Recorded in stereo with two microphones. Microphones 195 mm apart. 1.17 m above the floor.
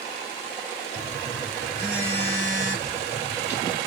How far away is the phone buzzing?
About 1.4 m.